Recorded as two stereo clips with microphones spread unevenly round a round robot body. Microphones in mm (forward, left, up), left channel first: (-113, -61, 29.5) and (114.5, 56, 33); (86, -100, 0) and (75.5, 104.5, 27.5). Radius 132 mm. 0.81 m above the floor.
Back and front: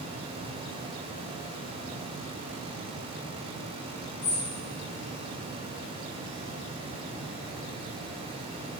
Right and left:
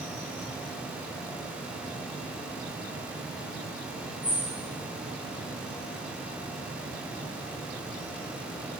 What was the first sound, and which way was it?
A bird, straight behind.